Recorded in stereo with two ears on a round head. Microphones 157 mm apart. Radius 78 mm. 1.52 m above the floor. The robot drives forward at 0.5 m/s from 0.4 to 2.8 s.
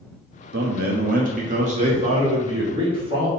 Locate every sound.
0.5 s a man speaking: 65° right (ahead or behind), 1.1 m; by 3.3 s 30° right (ahead or behind), 1.8 m